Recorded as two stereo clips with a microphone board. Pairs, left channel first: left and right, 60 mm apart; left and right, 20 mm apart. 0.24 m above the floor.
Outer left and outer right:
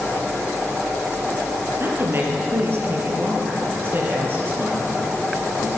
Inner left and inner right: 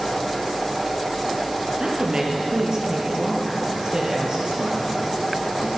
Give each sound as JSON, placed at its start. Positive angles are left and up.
{"t": 1.8, "sound": "a woman speaking", "side_deg": -40, "distance_m": 6.0}